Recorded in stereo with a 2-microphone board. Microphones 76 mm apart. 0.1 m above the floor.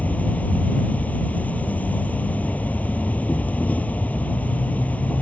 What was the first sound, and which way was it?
An insect, 20° left (ahead or behind).